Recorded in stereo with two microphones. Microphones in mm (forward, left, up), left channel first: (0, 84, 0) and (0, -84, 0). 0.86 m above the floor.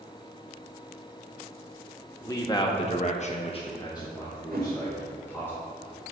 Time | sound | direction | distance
2.2 | a man speaking | 20° left (ahead or behind) | 1.6 m
4.5 | a whoosh | 65° right (ahead or behind) | 1.9 m